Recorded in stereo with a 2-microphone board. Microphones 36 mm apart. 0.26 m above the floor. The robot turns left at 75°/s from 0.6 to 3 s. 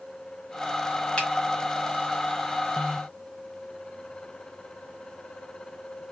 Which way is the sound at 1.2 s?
20° left (ahead or behind).